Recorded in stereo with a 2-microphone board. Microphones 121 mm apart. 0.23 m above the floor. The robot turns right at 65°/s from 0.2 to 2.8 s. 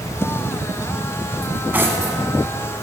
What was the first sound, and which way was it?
Cutlery clinking, 5° left (ahead or behind).